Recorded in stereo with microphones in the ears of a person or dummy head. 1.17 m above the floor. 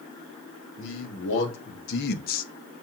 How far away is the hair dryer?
I don't hear a hair dryer.